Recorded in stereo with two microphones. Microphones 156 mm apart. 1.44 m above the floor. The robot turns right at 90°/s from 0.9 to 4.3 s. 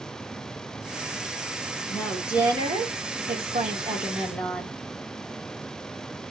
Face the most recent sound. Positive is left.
turn(degrees=10)